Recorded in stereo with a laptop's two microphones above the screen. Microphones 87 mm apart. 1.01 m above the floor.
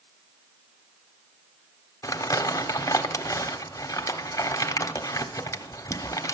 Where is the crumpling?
40° left (ahead or behind), 1.1 m.